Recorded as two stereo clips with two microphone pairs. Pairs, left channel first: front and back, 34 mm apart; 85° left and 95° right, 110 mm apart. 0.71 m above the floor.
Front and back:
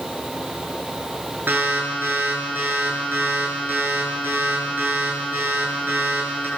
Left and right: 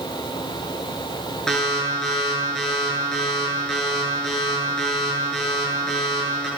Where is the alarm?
170° left, 9 m.